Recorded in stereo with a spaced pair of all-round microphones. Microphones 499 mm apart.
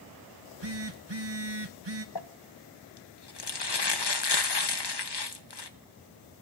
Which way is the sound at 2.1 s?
50° left (ahead or behind).